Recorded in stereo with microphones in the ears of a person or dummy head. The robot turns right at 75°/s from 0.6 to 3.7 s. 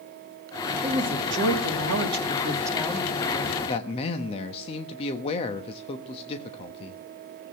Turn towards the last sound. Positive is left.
turn(degrees=35)  # may be behind; listen again after turning